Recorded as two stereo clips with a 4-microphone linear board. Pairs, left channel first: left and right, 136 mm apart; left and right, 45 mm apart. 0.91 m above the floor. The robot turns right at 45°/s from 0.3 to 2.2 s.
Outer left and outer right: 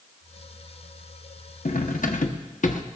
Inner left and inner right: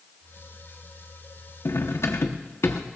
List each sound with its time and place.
1.6 s cutlery clinking: 85° left, 1.0 m; by 2.8 s 70° left (ahead or behind), 1.0 m